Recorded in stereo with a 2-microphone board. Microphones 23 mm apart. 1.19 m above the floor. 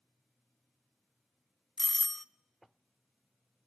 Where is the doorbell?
10° left (ahead or behind), 0.7 m.